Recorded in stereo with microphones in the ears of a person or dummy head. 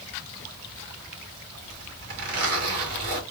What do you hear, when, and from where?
1.6 s a zipper: 50° right (ahead or behind), 3 m